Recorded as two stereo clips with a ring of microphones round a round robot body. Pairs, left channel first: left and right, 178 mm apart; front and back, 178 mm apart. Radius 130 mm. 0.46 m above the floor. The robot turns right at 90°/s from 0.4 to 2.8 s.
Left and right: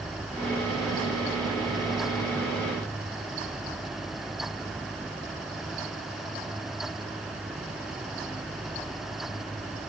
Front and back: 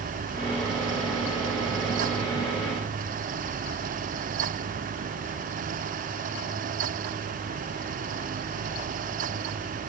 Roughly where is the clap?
I don't hear a clap.